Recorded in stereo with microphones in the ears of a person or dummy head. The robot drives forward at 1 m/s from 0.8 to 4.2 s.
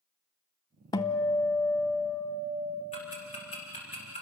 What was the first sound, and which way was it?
A guitar, 20° left (ahead or behind).